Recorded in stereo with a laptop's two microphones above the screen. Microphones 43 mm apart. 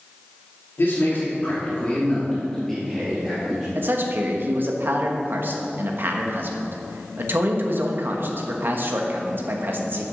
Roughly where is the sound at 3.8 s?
Right.